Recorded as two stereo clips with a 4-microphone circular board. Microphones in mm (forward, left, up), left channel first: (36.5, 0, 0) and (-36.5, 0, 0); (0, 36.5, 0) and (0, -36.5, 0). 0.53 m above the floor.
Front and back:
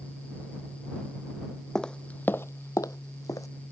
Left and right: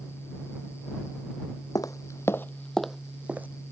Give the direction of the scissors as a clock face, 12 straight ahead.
No scissors in this recording.